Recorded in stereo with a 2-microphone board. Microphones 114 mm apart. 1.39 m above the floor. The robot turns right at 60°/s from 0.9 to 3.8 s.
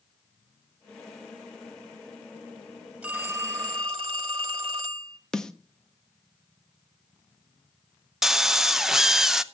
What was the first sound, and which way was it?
A phone ringing, 165° right.